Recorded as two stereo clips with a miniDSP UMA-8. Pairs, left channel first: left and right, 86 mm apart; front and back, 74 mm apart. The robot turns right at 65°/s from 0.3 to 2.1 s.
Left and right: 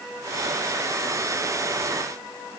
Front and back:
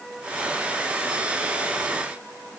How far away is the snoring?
No snoring in this recording.